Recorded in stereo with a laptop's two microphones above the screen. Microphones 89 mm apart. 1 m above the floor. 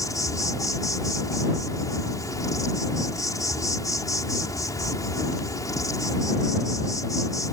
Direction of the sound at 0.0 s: 40° left (ahead or behind).